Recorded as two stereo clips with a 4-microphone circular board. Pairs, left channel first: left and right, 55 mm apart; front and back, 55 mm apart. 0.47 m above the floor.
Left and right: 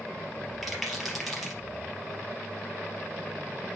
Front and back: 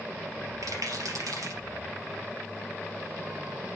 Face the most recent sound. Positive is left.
turn(degrees=180)